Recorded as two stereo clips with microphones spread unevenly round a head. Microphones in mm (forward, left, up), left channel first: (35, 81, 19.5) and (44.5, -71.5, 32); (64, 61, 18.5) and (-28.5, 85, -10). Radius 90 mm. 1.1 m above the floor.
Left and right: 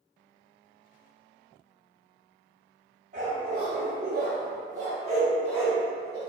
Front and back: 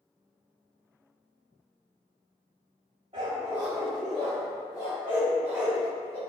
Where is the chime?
No chime in this recording.